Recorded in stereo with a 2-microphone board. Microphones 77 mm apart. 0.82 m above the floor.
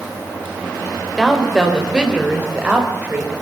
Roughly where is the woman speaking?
Centre.